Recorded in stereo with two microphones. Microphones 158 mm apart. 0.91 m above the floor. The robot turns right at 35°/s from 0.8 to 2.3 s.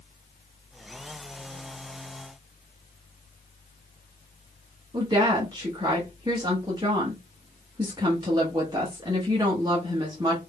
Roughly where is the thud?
I don't hear a thud.